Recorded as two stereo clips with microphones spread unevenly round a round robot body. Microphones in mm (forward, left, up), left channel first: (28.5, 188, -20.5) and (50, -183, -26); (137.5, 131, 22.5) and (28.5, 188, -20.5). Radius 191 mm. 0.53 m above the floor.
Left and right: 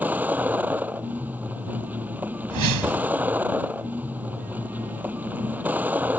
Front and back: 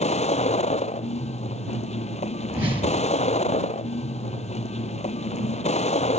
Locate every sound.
0.0 s a vehicle: straight ahead
2.5 s a whoosh: 130° right